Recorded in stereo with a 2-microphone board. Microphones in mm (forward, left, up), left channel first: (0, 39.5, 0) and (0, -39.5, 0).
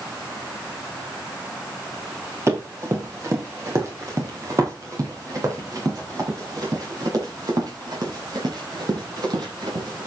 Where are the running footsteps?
35° right (ahead or behind), 6.5 m; by 10.1 s 60° right (ahead or behind), 9 m.